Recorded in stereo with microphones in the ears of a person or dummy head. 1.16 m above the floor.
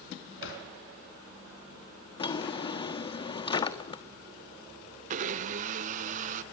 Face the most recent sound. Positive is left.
turn(degrees=-40)  # may be behind; listen again after turning